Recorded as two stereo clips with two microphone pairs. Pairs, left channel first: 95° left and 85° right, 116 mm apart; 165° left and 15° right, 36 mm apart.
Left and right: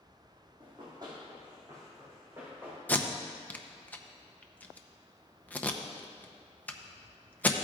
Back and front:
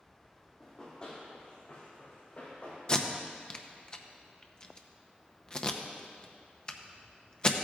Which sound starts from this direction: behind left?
Tape being pulled, at 2.9 s.